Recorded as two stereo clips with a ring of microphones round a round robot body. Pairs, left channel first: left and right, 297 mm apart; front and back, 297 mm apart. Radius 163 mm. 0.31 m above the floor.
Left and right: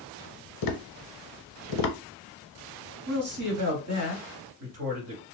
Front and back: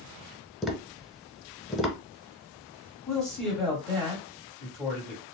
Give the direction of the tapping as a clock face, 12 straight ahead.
9 o'clock.